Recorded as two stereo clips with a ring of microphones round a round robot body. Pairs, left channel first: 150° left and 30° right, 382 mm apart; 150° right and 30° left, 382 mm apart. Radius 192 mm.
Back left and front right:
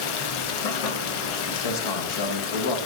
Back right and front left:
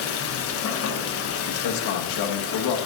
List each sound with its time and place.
0.0 s running water: 155° left, 1.0 m
1.5 s a man speaking: 175° left, 1.2 m